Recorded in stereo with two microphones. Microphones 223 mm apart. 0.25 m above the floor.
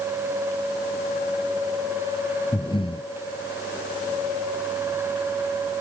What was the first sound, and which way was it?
Breathing, 20° left (ahead or behind).